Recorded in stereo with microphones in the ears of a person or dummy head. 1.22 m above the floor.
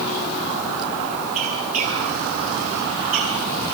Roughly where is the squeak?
Right.